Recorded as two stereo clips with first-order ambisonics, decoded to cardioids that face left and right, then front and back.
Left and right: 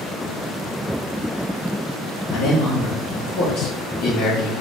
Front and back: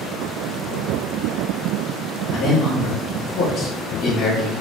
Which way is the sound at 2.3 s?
70° left.